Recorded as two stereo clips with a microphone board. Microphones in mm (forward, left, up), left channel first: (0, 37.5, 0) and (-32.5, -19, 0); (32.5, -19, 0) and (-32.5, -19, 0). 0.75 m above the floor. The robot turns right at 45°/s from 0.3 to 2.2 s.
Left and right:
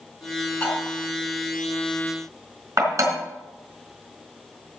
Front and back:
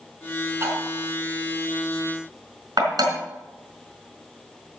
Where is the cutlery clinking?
130° left, 4 m; by 3.1 s 160° right, 4 m.